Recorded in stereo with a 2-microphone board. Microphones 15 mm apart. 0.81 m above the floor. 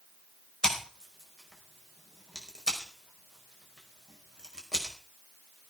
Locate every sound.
0.6 s scissors: 35° left (ahead or behind), 5 m